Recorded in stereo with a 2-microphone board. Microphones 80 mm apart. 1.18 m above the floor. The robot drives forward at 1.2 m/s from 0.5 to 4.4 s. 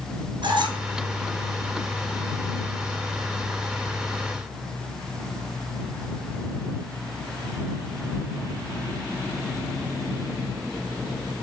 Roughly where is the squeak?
Right.